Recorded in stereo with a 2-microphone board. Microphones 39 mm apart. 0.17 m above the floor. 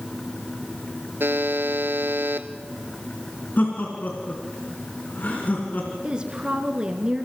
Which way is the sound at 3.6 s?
50° left (ahead or behind).